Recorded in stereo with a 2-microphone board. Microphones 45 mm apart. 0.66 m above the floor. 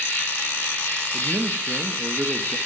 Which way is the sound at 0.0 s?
45° left (ahead or behind).